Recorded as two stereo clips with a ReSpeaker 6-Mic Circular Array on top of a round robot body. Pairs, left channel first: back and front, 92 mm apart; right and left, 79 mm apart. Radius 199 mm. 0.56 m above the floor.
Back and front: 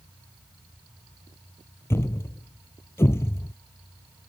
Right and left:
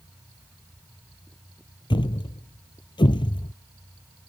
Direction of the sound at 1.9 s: 115° right.